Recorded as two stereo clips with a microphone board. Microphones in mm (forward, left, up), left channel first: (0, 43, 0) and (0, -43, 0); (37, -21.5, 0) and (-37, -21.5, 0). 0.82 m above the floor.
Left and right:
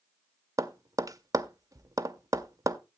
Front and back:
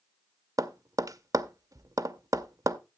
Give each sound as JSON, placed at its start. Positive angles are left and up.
{"t": 0.6, "sound": "tapping", "azimuth_deg": -140, "distance_m": 0.6}